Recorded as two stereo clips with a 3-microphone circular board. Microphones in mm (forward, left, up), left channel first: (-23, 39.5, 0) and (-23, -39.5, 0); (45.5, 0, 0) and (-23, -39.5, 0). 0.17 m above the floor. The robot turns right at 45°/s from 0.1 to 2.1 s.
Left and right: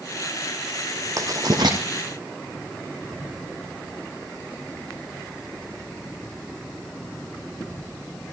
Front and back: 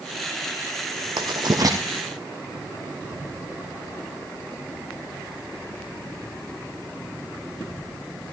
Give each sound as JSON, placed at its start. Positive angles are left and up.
{"t": 1.2, "sound": "writing", "azimuth_deg": -135, "distance_m": 3.0}